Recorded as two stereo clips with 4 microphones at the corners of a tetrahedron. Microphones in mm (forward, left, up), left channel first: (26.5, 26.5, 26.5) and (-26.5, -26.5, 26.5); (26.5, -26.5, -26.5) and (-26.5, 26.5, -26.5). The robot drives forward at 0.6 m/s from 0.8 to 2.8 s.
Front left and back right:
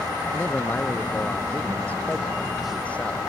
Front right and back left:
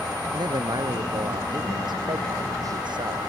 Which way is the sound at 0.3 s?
115° left.